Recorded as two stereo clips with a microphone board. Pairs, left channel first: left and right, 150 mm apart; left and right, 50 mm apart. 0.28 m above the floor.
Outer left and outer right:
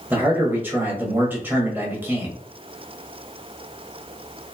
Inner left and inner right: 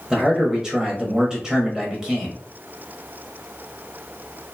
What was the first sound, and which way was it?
A man speaking, 15° right (ahead or behind).